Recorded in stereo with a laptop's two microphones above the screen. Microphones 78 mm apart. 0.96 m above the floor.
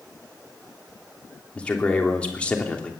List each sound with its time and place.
1.6 s a man speaking: 15° left (ahead or behind), 3 m